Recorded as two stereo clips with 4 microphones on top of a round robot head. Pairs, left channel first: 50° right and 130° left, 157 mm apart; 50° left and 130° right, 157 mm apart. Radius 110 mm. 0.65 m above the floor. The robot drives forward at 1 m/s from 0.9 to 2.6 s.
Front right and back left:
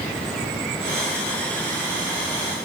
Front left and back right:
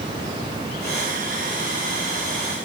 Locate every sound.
Only background noise.